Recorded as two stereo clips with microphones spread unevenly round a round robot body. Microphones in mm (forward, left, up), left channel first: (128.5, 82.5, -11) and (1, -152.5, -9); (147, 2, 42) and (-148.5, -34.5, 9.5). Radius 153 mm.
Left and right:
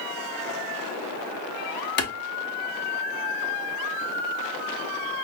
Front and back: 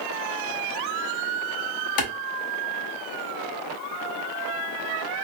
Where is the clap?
15° left, 1.1 m.